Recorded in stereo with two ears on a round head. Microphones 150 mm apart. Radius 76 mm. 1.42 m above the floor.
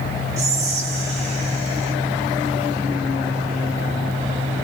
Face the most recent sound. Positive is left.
turn(degrees=-40)  # may be behind; listen again after turning